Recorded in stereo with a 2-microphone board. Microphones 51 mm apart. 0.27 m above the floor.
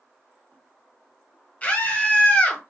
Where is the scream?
30° left (ahead or behind), 1.3 m.